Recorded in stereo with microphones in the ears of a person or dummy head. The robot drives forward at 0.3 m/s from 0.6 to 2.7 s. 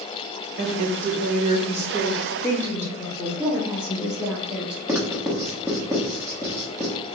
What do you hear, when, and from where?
0.6 s a woman speaking: 50° right (ahead or behind), 0.7 m; by 3.3 s 25° right (ahead or behind), 1.2 m
3.4 s a woman speaking: 10° right (ahead or behind), 1.1 m
4.9 s writing: 10° right (ahead or behind), 0.7 m